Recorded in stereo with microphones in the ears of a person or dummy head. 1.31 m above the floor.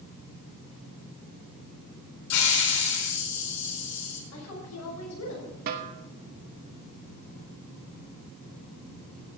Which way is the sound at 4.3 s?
85° left.